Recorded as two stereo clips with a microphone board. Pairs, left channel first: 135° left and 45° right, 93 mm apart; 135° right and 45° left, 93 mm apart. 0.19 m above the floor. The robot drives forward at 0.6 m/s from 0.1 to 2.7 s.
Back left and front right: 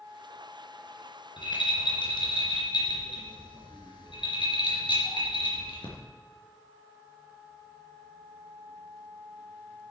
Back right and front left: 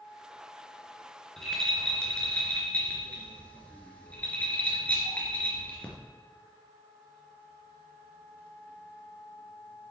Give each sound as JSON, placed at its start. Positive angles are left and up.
{"t": 1.4, "sound": "a rattle", "azimuth_deg": 140, "distance_m": 2.5}